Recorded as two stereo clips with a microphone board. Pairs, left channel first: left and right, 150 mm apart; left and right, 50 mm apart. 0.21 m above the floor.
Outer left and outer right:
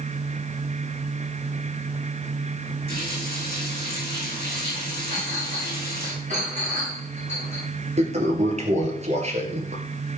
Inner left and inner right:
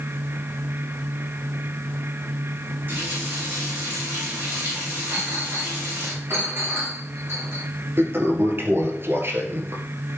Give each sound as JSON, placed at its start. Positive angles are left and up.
{"t": 2.9, "sound": "a running tap", "side_deg": -35, "distance_m": 8.0}
{"t": 5.1, "sound": "a clink", "side_deg": -50, "distance_m": 7.0}
{"t": 8.0, "sound": "a toilet flushing", "side_deg": -45, "distance_m": 2.0}